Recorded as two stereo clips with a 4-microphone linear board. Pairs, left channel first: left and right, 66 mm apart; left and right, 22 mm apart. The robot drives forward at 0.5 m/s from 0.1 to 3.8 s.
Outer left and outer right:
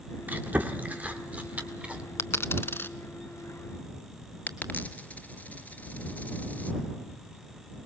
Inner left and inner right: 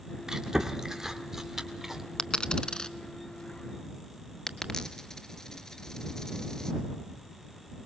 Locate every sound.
0.3 s chewing: 30° right (ahead or behind), 1.6 m; by 2.0 s 20° right (ahead or behind), 2.5 m
2.2 s a dropped coin: 50° left (ahead or behind), 0.7 m; by 7.9 s 25° left (ahead or behind), 1.2 m